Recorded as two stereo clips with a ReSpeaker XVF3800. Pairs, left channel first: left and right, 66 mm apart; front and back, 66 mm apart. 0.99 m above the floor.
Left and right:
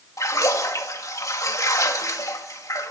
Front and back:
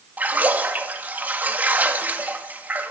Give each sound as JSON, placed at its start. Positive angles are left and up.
{"t": 0.2, "sound": "a splash", "azimuth_deg": 120, "distance_m": 1.9}